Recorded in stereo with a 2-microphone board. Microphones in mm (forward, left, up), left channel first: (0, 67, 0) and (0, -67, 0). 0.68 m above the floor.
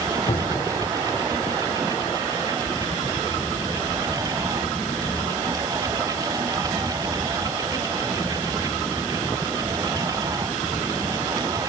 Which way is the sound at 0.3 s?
50° left (ahead or behind).